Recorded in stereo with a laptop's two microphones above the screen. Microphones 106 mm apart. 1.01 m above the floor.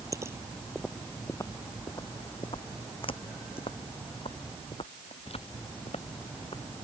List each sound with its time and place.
0.1 s footsteps: 30° right (ahead or behind); by 6.7 s 65° left (ahead or behind)